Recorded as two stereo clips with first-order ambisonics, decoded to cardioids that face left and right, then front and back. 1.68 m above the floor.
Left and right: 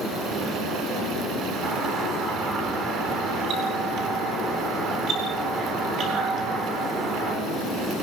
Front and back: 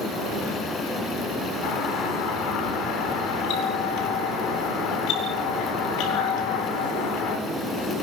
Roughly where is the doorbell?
Ahead right.